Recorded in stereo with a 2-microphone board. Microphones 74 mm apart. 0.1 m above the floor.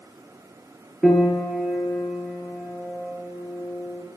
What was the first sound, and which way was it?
A piano, centre (ahead or behind).